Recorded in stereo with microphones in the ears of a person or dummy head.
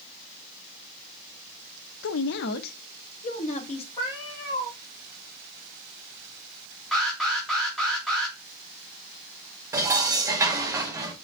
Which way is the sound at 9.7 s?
15° right (ahead or behind).